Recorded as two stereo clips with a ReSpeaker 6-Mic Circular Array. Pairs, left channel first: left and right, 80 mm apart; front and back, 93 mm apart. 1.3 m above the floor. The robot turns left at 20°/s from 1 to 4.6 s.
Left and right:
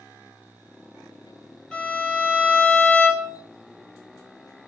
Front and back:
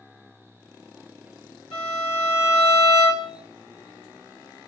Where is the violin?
10° left, 1.0 m; by 3.4 s 20° right, 1.0 m.